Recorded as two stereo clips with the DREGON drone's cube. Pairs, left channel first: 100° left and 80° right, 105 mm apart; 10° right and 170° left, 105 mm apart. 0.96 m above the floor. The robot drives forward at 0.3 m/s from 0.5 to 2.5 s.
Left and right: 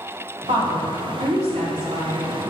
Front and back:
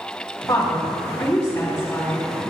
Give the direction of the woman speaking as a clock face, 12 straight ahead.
2 o'clock.